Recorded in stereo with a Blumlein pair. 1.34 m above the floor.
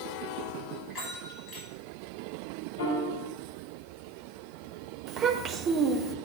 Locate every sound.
0.9 s a bell: 30° left, 5 m
2.8 s a piano: 60° left, 4.5 m
5.1 s a child speaking: 25° right, 1.4 m